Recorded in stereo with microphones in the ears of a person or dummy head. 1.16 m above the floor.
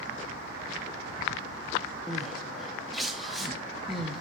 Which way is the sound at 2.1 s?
Centre (ahead or behind).